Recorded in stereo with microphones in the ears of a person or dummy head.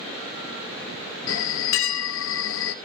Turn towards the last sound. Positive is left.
turn(degrees=75)  # may be behind; listen again after turning